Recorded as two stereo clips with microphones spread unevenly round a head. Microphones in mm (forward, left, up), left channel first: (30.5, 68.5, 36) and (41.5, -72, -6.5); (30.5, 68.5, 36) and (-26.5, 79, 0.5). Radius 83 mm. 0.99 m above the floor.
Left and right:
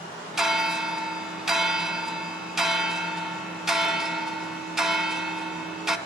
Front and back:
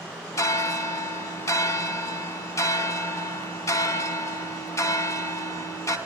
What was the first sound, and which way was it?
A bell, 5° left.